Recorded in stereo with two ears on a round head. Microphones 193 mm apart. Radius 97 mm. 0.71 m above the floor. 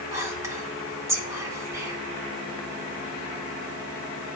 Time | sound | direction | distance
0.1 | whispering | 15° right (ahead or behind) | 2.5 m